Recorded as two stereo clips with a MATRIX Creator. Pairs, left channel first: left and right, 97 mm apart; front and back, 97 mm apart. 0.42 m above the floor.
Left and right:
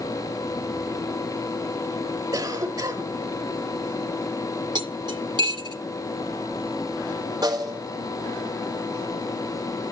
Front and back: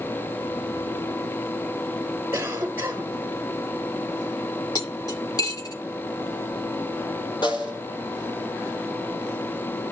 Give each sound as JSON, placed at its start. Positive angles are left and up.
{"t": 2.3, "sound": "a cough", "azimuth_deg": -120, "distance_m": 1.3}
{"t": 4.8, "sound": "cutlery clinking", "azimuth_deg": -50, "distance_m": 2.0}
{"t": 7.4, "sound": "a snare drum", "azimuth_deg": -40, "distance_m": 3.0}